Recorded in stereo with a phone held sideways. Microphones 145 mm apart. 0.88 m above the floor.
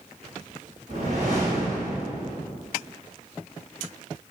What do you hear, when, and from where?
0.9 s a whoosh: 55° right (ahead or behind), 1.6 m